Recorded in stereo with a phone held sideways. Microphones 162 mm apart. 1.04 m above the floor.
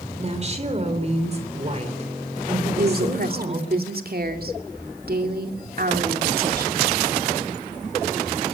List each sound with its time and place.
0.2 s a woman speaking: 40° right (ahead or behind), 3.5 m
2.8 s a woman speaking: 70° right (ahead or behind), 2.5 m